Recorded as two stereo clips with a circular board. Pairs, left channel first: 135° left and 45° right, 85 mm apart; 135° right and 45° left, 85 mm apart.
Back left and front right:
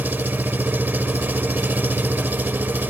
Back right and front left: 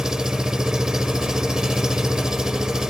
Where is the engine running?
25° right, 0.8 m.